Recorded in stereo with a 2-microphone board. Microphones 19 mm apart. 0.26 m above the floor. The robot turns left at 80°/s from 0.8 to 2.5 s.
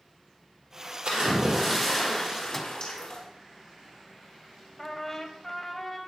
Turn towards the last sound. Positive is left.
turn(degrees=20)  # may be behind; listen again after turning